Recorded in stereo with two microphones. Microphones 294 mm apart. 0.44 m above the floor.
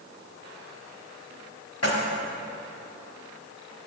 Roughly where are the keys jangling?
Left.